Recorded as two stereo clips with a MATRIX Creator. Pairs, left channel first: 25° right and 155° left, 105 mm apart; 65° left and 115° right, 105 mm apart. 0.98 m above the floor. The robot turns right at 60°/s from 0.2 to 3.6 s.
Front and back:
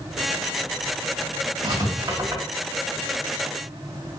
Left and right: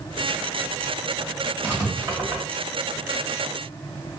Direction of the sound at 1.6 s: 175° right.